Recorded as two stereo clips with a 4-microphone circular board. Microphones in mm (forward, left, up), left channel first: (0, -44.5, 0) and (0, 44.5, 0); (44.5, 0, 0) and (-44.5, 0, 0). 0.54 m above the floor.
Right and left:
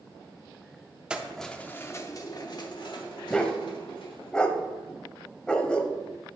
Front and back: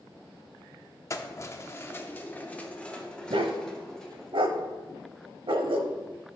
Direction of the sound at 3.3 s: 170° right.